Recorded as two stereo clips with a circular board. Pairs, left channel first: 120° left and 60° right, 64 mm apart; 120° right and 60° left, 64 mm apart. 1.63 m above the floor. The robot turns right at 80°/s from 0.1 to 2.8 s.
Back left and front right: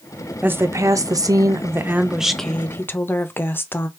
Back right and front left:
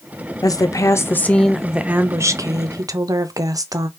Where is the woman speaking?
125° right, 0.5 m; by 3.9 s 70° left, 0.5 m.